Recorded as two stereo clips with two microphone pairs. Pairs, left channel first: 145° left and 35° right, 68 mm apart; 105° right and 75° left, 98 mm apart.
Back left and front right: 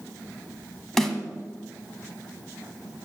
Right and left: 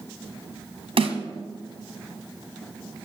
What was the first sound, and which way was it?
A snare drum, 60° left.